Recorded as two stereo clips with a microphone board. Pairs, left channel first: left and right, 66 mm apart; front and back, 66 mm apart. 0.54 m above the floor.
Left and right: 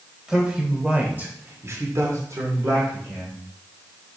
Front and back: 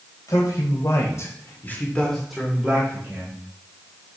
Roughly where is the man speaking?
Ahead.